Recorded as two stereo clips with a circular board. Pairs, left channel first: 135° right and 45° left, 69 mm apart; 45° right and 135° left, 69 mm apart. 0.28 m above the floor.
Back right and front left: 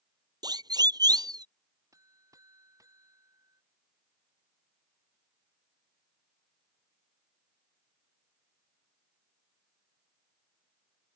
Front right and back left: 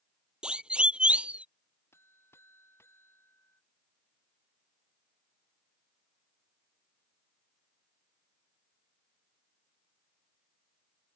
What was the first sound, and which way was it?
A siren, 60° left.